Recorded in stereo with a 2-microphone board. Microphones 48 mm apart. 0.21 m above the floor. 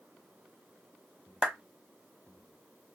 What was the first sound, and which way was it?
A clap, 25° right (ahead or behind).